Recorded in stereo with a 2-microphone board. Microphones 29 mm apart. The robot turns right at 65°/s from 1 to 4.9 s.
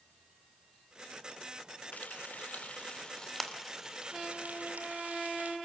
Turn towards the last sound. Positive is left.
turn(degrees=-85)